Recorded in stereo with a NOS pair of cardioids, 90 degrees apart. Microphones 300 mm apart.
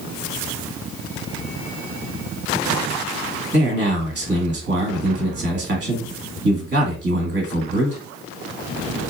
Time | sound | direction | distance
3.5 | a man speaking | 35° right | 1.5 m